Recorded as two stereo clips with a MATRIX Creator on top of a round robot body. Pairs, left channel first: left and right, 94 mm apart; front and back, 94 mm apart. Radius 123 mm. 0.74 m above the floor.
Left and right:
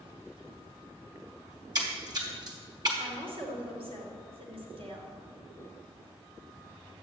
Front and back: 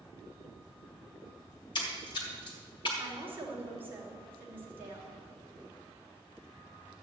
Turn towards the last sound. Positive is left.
turn(degrees=-110)